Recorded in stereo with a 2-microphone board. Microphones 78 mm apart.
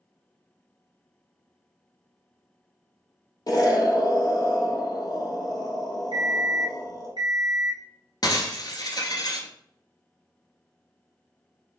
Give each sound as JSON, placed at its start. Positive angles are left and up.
{"t": 3.5, "sound": "an explosion", "side_deg": 55, "distance_m": 0.7}
{"t": 6.1, "sound": "an alarm clock", "side_deg": -85, "distance_m": 1.5}
{"t": 8.2, "sound": "breaking glass", "side_deg": 60, "distance_m": 0.7}